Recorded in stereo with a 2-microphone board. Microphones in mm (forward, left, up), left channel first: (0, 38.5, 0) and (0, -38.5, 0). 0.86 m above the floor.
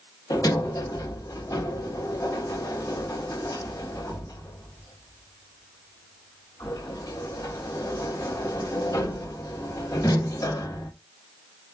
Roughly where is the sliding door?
Left.